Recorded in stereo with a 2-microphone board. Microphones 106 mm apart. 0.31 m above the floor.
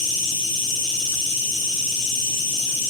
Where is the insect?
40° right (ahead or behind), 3 m.